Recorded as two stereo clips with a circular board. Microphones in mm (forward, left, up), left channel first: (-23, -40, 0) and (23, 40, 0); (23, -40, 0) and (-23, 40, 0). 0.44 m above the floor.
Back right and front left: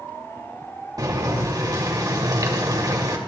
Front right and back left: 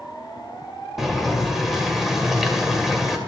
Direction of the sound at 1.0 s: 35° left.